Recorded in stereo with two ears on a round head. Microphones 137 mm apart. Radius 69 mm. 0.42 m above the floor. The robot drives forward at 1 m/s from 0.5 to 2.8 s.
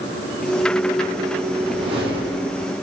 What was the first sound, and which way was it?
A whoosh, 35° right (ahead or behind).